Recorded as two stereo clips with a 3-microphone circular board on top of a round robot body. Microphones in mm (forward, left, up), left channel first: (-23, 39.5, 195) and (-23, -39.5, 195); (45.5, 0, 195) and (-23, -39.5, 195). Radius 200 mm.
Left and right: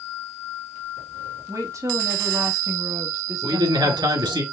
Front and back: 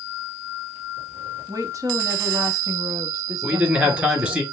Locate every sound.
1.5 s a woman speaking: 120° right, 1.4 m
3.4 s a man speaking: 80° right, 3 m